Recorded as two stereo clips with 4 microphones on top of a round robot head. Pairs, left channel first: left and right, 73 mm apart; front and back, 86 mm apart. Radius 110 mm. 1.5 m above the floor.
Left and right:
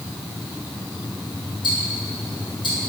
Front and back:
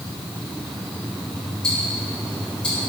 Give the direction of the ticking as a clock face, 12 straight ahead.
9 o'clock.